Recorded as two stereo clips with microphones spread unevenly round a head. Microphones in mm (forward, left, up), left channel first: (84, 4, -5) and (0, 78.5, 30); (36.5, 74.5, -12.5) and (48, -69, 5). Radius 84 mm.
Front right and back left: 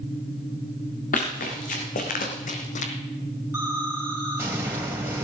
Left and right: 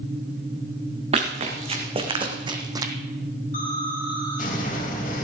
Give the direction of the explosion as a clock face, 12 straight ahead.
10 o'clock.